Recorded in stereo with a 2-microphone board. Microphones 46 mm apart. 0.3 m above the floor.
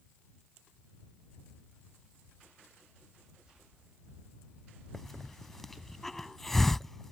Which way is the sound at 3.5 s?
15° right (ahead or behind).